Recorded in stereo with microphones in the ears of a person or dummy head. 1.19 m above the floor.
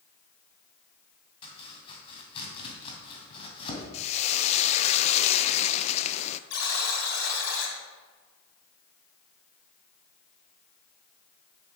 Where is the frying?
35° left (ahead or behind), 0.5 m.